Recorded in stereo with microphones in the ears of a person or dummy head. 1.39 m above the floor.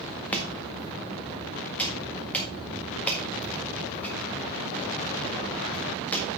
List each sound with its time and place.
0.3 s chopping: 10° left (ahead or behind), 1.7 m